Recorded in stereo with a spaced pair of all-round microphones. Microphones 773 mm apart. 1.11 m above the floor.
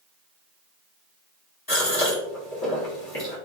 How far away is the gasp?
About 1.1 m.